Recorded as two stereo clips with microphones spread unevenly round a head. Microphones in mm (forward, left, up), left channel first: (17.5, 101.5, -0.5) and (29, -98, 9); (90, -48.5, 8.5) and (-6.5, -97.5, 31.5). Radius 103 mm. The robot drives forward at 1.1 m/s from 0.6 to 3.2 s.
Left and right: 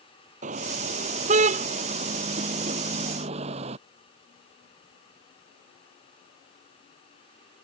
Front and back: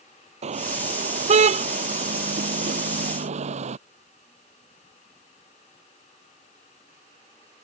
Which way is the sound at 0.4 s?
145° right.